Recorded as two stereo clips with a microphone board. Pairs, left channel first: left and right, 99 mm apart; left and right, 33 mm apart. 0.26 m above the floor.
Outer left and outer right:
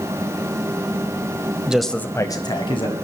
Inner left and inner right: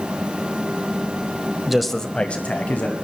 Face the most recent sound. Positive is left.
turn(degrees=60)  # may be behind; listen again after turning